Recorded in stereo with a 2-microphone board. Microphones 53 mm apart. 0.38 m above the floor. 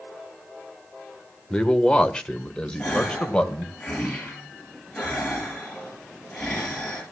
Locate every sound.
1.5 s a man speaking: 15° left (ahead or behind), 1.4 m
2.8 s a gasp: 10° left (ahead or behind), 7.5 m